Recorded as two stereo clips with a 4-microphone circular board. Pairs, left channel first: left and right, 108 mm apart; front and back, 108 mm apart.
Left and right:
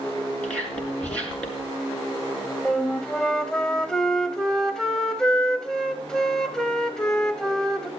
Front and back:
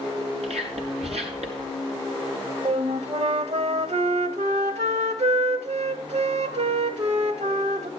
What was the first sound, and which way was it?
Whispering, 170° left.